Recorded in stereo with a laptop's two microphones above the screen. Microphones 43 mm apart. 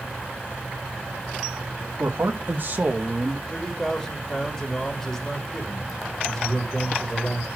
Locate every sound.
2.0 s a man speaking: 65° right (ahead or behind), 1.6 m; by 3.4 s 10° right (ahead or behind), 1.6 m
3.5 s a man speaking: 15° left (ahead or behind), 2 m